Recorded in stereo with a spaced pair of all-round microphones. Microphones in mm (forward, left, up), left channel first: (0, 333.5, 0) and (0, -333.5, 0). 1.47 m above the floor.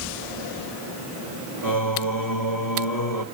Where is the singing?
30° left (ahead or behind), 1.5 m.